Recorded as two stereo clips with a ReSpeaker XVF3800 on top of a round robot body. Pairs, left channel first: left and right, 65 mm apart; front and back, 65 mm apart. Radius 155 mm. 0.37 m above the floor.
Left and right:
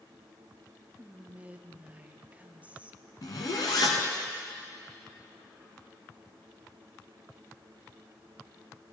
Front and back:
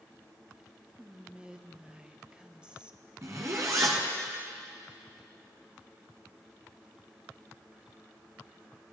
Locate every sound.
1.0 s whispering: 125° right, 0.9 m
3.2 s a zipper: 125° left, 0.8 m